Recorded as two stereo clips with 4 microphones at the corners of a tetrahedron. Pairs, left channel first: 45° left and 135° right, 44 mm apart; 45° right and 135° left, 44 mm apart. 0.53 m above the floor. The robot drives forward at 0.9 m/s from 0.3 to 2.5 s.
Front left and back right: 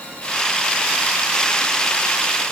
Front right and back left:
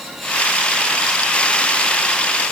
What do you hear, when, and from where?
Only background noise.